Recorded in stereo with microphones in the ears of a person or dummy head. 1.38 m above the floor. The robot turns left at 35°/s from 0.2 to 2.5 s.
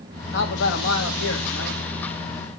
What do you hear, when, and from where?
0.3 s a man speaking: 125° left, 2.5 m; by 1.8 s 70° left, 2.5 m